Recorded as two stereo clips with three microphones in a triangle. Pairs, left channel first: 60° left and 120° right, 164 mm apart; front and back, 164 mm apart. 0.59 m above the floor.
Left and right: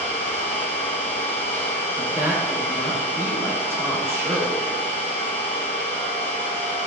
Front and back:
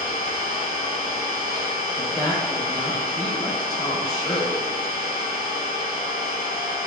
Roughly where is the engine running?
Ahead right.